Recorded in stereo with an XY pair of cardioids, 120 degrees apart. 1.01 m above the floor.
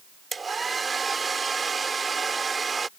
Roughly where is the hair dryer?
Ahead right.